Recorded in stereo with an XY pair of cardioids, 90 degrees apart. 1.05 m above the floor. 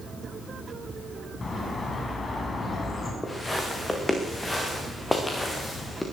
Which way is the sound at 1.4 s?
40° left.